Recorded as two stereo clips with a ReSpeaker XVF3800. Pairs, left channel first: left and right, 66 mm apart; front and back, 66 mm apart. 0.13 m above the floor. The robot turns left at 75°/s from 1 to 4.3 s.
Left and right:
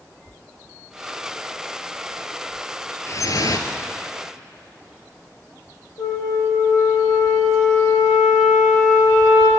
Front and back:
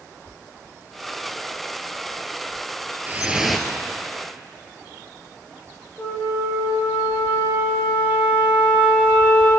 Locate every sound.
3.1 s dripping: 125° left, 1.7 m; by 3.7 s 75° left, 1.7 m
6.0 s a flute: 65° left, 7.5 m